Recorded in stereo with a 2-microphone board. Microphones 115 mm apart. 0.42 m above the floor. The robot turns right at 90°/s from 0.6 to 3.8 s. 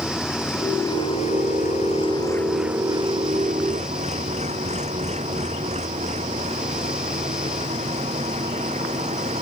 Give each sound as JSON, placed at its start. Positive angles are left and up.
{"t": 0.0, "sound": "an engine running", "azimuth_deg": 5}